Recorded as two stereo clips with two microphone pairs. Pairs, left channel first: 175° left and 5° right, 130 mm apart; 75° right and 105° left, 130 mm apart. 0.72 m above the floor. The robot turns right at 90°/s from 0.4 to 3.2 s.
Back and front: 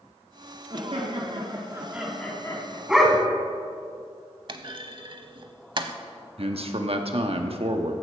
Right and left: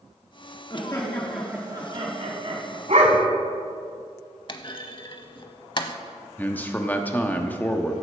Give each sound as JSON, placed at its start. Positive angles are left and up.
{"t": 0.7, "sound": "laughter", "azimuth_deg": -40, "distance_m": 1.7}
{"t": 2.9, "sound": "a dog barking", "azimuth_deg": 80, "distance_m": 1.5}
{"t": 4.5, "sound": "a clunk", "azimuth_deg": -40, "distance_m": 0.8}
{"t": 6.4, "sound": "a man speaking", "azimuth_deg": 0, "distance_m": 1.1}